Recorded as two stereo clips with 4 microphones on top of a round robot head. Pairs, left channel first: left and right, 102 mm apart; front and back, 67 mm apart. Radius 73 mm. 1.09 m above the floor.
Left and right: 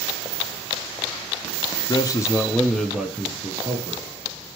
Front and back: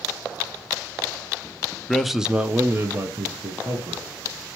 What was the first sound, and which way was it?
A man speaking, 80° left.